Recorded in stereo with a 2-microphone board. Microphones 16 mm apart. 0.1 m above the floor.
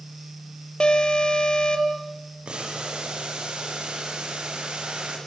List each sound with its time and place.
0.8 s an alarm: 55° left (ahead or behind), 3 m
2.5 s boiling: 75° right (ahead or behind), 7 m